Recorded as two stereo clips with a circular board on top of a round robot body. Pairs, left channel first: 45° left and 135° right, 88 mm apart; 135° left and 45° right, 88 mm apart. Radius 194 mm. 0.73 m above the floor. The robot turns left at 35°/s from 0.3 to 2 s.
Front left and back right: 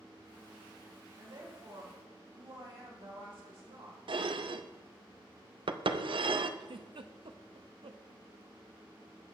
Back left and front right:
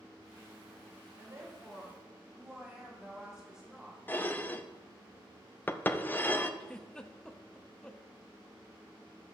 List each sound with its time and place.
1.2 s a woman speaking: 100° right, 3.5 m; by 4.0 s 130° right, 3.5 m
4.1 s dishes clattering: 155° right, 0.7 m
6.6 s a giggle: 145° right, 1.0 m